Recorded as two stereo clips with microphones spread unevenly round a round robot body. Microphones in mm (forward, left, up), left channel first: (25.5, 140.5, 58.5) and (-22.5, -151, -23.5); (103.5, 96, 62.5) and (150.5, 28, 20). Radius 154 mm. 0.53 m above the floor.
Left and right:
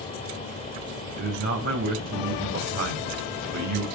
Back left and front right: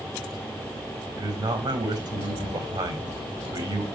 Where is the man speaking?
45° right, 3.5 m.